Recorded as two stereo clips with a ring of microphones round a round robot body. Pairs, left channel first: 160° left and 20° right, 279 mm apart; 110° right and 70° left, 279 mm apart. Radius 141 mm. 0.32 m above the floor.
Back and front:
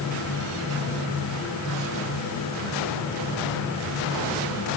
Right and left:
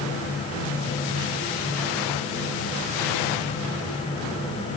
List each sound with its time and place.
Only background noise.